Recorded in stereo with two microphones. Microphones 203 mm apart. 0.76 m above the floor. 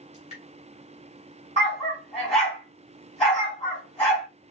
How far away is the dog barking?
About 3 m.